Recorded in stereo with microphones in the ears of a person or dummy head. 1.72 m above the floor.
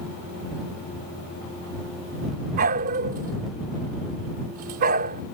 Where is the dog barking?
35° right (ahead or behind).